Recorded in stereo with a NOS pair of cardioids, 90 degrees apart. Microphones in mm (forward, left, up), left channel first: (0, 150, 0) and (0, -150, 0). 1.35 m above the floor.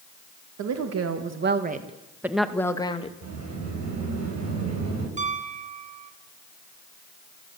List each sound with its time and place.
0.6 s a woman speaking: 65° right, 2.5 m; by 3.1 s 20° left, 2.5 m
3.2 s a sliding door: 65° right, 7.5 m
5.2 s a piano: 25° right, 2.5 m